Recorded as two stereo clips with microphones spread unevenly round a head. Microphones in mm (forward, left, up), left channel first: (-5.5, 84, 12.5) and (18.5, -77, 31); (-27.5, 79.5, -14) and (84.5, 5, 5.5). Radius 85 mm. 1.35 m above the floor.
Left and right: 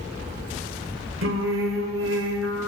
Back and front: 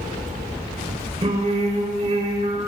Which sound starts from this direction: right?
Singing, at 1.2 s.